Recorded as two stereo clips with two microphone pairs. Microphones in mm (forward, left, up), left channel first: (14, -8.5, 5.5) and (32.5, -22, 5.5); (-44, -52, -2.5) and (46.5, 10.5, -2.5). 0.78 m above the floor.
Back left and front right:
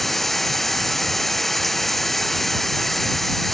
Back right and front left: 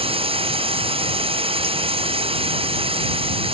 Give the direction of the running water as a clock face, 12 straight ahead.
10 o'clock.